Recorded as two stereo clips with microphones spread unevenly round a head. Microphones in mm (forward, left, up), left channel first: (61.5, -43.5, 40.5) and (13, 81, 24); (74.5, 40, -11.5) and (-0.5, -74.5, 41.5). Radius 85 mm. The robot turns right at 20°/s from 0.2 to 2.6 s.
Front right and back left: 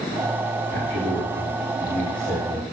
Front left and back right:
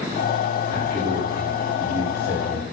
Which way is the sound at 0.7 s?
155° left.